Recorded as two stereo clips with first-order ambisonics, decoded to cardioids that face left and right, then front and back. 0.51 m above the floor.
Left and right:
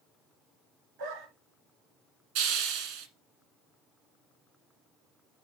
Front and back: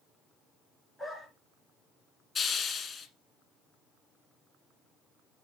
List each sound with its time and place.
1.0 s a dog barking: 95° right, 2 m
2.4 s a hiss: 70° right, 1.4 m